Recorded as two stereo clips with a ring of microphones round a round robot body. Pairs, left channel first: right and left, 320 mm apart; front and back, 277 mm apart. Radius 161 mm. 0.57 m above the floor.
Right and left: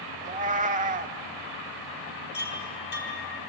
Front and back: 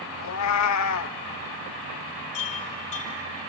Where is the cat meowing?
25° left, 0.6 m.